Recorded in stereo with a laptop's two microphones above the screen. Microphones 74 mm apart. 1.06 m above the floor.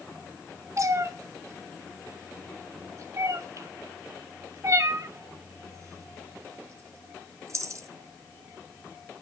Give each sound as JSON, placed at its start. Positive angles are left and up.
{"t": 0.8, "sound": "a cat meowing", "side_deg": -45, "distance_m": 0.9}